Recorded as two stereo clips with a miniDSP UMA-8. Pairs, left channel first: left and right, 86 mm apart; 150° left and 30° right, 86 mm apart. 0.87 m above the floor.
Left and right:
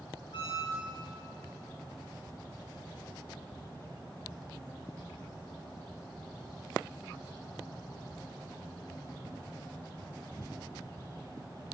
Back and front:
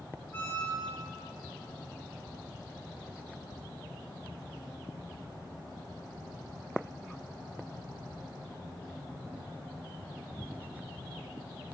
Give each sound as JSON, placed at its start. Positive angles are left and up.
{"t": 0.3, "sound": "a squeak", "azimuth_deg": 85, "distance_m": 3.0}